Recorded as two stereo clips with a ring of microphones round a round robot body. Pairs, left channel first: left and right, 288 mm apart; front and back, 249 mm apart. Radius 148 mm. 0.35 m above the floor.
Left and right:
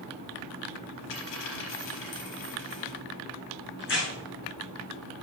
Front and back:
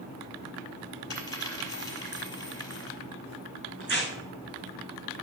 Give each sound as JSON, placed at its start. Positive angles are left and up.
{"t": 1.1, "sound": "a dropped coin", "azimuth_deg": 75, "distance_m": 4.5}
{"t": 3.8, "sound": "tearing paper", "azimuth_deg": 140, "distance_m": 5.0}